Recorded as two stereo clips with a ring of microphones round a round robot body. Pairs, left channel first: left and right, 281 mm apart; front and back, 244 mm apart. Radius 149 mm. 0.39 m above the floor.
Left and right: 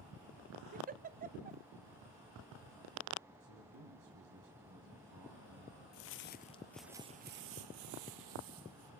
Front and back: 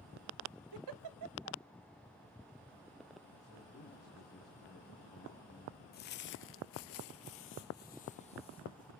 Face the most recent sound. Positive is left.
turn(degrees=-75)